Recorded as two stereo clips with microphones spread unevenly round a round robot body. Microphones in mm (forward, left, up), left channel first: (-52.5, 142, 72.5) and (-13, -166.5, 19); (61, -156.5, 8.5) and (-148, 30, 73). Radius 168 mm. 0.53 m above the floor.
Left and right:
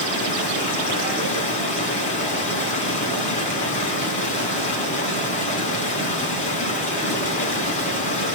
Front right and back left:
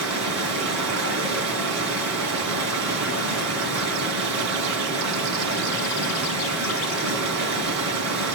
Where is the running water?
165° left, 3.5 m.